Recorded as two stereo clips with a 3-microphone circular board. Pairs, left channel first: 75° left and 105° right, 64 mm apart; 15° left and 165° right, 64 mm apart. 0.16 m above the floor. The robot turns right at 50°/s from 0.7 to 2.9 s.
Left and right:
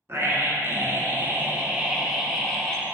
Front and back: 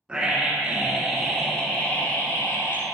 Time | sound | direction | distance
0.1 | a scream | 100° right | 1.7 m